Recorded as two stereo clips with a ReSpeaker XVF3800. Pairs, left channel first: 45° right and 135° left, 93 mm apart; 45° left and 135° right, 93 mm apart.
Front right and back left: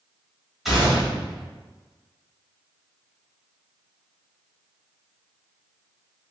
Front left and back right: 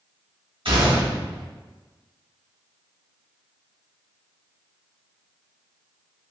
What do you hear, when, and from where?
0.7 s a gunshot: 140° right, 1.4 m